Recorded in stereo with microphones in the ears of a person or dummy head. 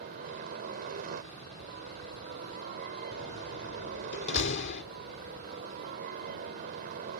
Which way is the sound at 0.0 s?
45° right (ahead or behind).